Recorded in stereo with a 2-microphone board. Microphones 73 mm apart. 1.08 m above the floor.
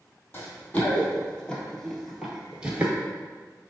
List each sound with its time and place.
0.3 s running footsteps: 25° left (ahead or behind), 1.9 m; by 2.9 s 25° right (ahead or behind), 1.2 m